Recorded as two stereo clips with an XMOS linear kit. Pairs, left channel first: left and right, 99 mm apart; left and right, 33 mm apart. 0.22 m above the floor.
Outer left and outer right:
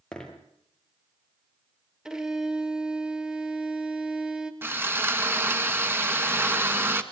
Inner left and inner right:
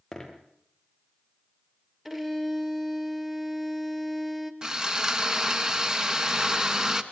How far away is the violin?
About 1.7 m.